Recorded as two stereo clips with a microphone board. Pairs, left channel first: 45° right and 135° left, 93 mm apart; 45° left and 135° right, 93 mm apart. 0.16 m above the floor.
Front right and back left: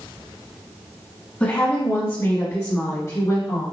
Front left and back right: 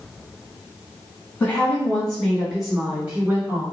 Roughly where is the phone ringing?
No phone ringing in this recording.